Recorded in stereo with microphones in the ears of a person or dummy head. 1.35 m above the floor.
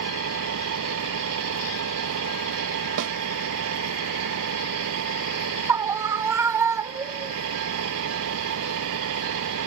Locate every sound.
0.0 s an engine running: 80° right
3.0 s a snare drum: 65° right (ahead or behind)
5.7 s a scream: 20° right (ahead or behind)